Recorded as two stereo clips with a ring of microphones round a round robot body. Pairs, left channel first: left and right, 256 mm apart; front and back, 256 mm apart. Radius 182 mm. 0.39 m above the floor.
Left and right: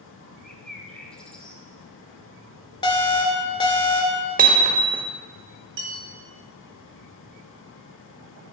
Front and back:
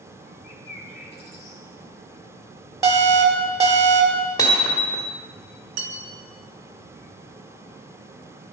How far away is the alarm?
About 1.9 m.